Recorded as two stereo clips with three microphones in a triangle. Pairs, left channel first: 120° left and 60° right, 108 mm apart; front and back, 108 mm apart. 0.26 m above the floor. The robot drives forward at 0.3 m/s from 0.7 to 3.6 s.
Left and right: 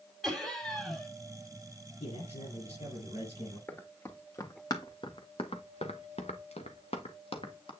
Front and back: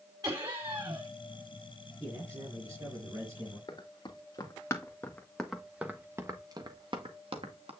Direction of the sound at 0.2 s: 155° right.